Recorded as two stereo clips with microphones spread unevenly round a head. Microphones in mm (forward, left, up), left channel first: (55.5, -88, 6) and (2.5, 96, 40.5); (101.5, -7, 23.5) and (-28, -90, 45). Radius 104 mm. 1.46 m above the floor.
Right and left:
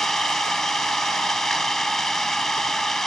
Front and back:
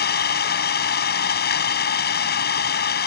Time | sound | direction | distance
0.0 | an engine running | 15° left | ?